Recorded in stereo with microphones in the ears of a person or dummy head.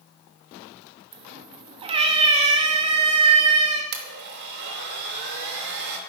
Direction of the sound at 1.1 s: 25° right (ahead or behind).